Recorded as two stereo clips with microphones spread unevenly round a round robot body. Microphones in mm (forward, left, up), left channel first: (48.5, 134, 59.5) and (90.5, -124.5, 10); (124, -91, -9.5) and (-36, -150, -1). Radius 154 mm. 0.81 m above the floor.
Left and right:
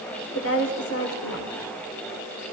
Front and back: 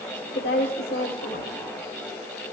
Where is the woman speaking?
65° left, 3 m.